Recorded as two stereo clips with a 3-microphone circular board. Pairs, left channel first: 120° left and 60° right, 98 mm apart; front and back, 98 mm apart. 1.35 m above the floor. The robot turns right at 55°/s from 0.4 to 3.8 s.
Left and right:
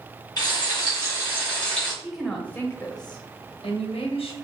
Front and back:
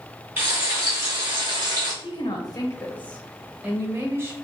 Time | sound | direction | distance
0.4 | frying | 120° left | 1.5 m
2.0 | a woman speaking | 20° left | 0.6 m